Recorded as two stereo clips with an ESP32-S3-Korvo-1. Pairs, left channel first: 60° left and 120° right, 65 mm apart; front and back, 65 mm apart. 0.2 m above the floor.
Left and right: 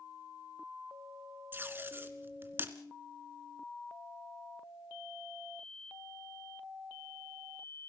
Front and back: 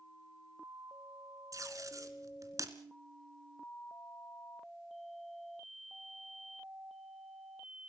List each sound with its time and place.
1.5 s tape being pulled: 170° right, 1.8 m